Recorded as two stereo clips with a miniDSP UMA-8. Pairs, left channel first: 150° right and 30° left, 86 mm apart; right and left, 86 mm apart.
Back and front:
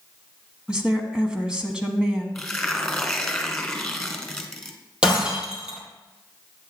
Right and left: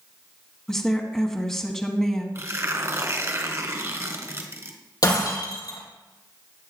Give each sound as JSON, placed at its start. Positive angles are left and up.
{"t": 0.7, "sound": "a woman speaking", "azimuth_deg": -25, "distance_m": 1.0}
{"t": 2.4, "sound": "tearing paper", "azimuth_deg": 125, "distance_m": 1.3}
{"t": 5.0, "sound": "breaking glass", "azimuth_deg": -50, "distance_m": 3.0}